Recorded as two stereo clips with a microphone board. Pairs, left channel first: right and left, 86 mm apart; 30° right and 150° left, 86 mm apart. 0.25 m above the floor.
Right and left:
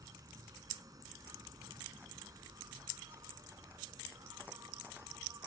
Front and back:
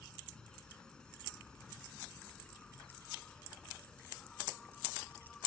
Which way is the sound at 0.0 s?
50° left.